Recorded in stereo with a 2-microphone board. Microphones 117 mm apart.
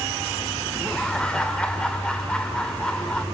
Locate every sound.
0.8 s laughter: 10° left (ahead or behind), 1.7 m